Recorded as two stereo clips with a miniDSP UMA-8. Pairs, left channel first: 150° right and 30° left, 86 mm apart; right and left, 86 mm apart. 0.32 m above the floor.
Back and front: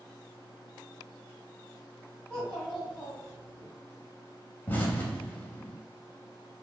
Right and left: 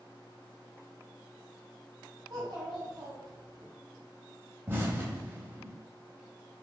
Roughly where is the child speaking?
Behind left.